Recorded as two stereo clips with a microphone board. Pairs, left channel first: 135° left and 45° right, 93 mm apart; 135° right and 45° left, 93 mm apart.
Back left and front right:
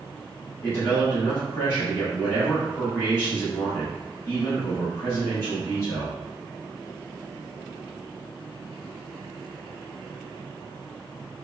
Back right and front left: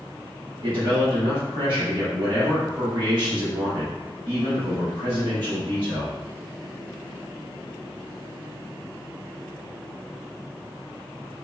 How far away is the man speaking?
About 1.3 m.